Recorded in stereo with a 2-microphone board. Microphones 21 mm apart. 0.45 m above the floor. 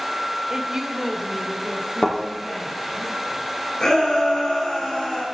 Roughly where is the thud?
Left.